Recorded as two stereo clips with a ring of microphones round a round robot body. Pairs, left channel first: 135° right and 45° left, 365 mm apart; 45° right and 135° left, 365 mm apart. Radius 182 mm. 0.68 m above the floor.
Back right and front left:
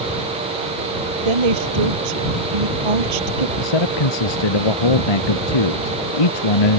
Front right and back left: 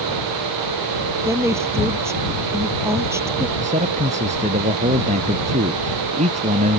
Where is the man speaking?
155° right.